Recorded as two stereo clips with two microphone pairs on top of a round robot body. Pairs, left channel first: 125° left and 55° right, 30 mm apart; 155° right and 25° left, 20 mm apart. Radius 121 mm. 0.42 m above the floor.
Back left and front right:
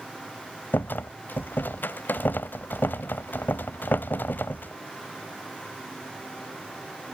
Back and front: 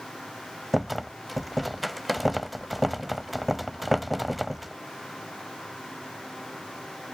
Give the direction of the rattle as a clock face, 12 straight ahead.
8 o'clock.